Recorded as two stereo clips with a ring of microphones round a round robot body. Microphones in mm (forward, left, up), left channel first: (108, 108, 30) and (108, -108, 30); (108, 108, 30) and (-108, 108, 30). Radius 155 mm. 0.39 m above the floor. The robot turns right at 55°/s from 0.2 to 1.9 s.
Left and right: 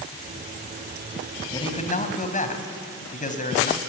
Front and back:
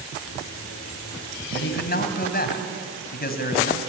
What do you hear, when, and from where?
1.5 s a man speaking: 20° left, 3.5 m; by 3.8 s 40° left, 3.5 m